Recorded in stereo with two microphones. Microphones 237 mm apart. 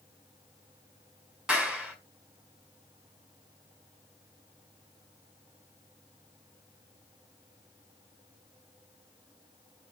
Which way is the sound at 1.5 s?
5° right (ahead or behind).